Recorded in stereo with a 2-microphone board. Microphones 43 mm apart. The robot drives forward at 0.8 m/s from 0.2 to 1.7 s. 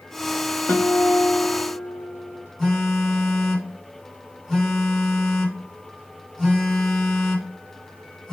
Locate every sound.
0.7 s a guitar: 80° left, 1.2 m; by 2.4 s 50° left (ahead or behind), 1.5 m
2.6 s a phone buzzing: centre (ahead or behind), 1.7 m